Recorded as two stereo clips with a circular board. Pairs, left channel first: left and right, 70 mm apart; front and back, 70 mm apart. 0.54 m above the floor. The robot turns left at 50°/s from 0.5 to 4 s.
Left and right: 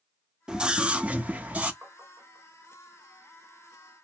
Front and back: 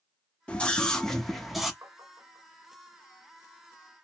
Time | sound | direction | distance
0.5 | a scream | 40° right | 0.8 m
1.8 | tapping | 145° right | 2.5 m